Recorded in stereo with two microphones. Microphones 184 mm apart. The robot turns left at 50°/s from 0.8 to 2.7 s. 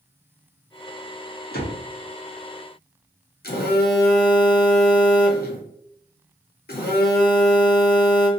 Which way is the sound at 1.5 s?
60° left (ahead or behind).